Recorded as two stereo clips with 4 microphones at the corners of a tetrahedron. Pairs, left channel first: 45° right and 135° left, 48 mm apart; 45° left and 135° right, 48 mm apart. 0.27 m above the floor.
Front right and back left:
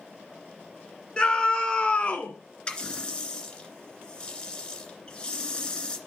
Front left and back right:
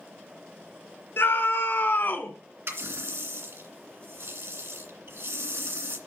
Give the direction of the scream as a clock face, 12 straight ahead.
11 o'clock.